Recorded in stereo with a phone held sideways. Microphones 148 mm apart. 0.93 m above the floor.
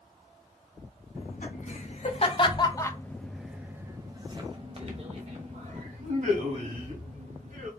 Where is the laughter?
60° left (ahead or behind), 1.4 m; by 7.7 s 65° right (ahead or behind), 2.5 m.